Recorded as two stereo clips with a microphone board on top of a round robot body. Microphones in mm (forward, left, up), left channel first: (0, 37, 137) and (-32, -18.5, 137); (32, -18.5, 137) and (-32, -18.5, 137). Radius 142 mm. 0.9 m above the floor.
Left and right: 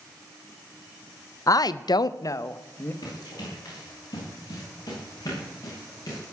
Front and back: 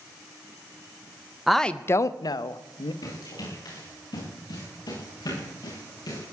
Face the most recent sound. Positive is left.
turn(degrees=15)